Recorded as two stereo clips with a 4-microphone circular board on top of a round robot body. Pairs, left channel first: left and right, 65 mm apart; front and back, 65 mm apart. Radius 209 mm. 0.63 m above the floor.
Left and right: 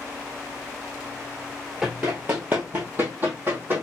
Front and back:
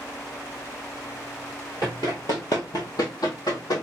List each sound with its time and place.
1.8 s running footsteps: 15° right, 0.6 m; by 3.8 s 30° right, 1.8 m